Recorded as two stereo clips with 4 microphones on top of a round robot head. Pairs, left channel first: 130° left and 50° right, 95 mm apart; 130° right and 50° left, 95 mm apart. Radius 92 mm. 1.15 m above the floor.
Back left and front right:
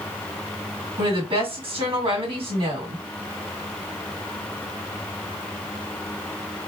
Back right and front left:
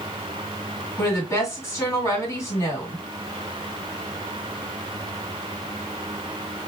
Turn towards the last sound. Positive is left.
turn(degrees=-65)